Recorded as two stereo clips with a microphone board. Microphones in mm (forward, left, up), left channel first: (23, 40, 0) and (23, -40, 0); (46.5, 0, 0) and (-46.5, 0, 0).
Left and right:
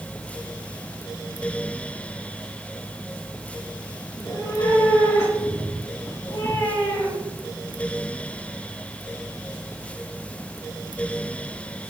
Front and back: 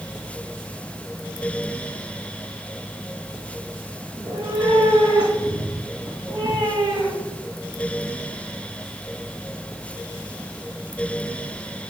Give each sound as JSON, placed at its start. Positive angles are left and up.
{"t": 4.1, "sound": "a cat meowing", "azimuth_deg": 150, "distance_m": 8.5}